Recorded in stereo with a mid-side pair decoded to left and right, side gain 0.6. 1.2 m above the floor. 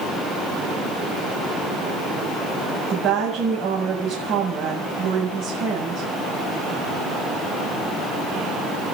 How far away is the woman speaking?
About 7 m.